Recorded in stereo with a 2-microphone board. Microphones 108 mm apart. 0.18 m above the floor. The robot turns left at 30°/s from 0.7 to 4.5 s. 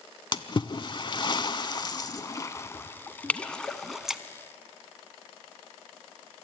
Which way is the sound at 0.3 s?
50° left (ahead or behind).